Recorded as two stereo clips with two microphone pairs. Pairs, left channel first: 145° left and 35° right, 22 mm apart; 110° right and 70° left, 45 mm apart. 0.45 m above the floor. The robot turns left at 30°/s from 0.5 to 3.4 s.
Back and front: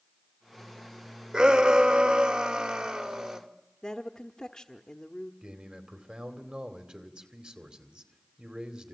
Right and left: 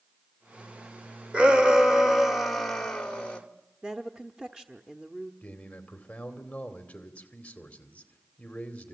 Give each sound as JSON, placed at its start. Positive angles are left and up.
{"t": 1.3, "sound": "a shout", "azimuth_deg": 5, "distance_m": 1.9}
{"t": 3.8, "sound": "a woman speaking", "azimuth_deg": 125, "distance_m": 0.9}
{"t": 5.4, "sound": "a man speaking", "azimuth_deg": -55, "distance_m": 2.5}